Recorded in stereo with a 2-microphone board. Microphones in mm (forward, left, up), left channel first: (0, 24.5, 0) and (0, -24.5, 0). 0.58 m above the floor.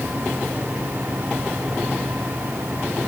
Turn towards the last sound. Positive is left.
No sound to turn to.